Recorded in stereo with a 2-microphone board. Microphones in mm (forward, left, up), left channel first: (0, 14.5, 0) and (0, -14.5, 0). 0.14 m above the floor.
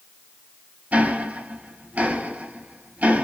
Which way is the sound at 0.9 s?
55° right (ahead or behind).